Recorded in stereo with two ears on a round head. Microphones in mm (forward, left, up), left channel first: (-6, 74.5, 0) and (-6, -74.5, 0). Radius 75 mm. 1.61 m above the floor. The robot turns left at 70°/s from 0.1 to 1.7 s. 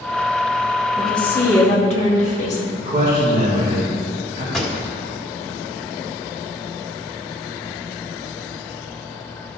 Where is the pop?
Centre (ahead or behind), 1.4 m.